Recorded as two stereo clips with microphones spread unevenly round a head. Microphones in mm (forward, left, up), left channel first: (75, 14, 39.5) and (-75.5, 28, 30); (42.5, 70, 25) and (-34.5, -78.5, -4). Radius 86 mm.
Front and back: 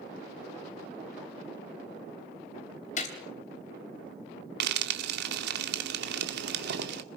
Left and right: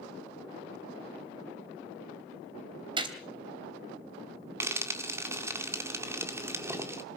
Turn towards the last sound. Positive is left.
turn(degrees=165)